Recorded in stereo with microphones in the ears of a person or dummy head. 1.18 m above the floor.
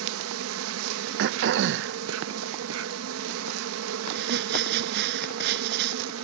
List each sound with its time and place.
0.0 s an insect: 75° right (ahead or behind)
1.2 s throat clearing: 65° right (ahead or behind)
4.1 s crumpling: 65° right (ahead or behind)